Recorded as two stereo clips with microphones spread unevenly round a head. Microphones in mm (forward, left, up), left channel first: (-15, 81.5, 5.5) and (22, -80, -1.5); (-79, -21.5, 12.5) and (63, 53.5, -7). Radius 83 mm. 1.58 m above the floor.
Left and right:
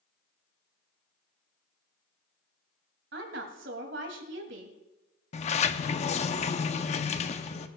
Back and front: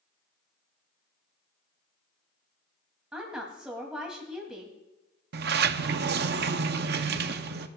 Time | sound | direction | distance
3.1 | a woman speaking | 60° right | 2.5 m
5.3 | a sliding door | 55° left | 0.7 m